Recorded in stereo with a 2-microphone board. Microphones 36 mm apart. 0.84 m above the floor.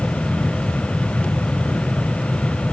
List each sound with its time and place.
Only background noise.